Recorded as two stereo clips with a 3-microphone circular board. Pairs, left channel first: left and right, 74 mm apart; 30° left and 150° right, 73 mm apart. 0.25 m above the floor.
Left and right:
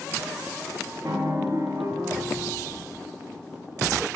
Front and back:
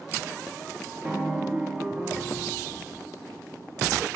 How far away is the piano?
About 1.1 m.